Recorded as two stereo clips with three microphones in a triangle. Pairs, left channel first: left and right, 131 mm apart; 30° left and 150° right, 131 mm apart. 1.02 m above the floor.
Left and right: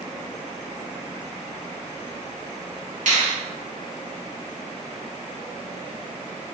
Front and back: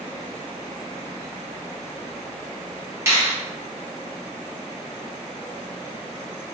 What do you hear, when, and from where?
3.1 s a finger snap: 80° right, 1.2 m